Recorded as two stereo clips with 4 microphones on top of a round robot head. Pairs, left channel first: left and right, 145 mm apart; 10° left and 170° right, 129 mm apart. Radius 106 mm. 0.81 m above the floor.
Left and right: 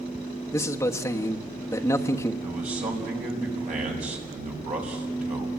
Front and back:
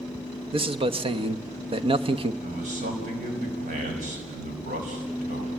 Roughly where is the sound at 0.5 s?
Behind.